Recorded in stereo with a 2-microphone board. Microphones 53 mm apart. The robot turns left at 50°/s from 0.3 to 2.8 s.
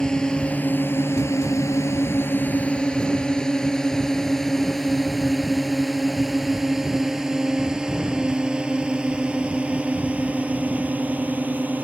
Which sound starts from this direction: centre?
A drone, at 0.0 s.